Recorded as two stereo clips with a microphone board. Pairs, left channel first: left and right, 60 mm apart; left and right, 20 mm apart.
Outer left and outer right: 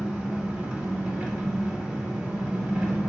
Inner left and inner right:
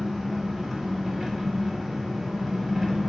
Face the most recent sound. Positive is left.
turn(degrees=-20)  # may be behind; listen again after turning